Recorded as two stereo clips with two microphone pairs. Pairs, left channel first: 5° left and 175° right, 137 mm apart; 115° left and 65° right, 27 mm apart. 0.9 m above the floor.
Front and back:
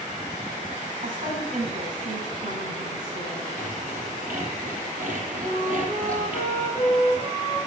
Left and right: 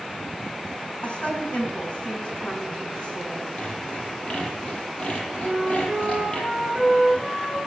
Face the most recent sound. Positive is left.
turn(degrees=-150)